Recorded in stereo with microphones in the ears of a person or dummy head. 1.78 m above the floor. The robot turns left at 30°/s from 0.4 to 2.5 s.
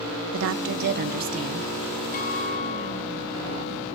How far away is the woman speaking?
About 1.6 m.